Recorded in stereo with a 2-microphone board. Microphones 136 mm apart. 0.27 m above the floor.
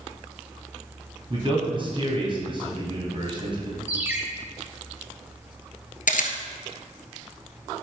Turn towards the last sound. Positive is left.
turn(degrees=85)